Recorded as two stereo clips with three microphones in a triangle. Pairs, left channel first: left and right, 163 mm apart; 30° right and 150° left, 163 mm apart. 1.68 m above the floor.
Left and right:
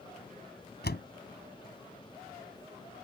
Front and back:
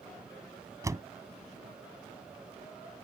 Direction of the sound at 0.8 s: 80° left.